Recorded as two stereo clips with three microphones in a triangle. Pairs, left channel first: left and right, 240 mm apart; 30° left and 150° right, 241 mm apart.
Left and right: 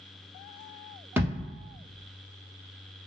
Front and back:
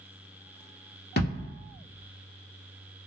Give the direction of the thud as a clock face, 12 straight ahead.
12 o'clock.